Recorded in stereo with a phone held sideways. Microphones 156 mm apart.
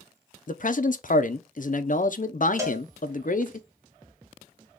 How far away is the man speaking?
About 0.5 m.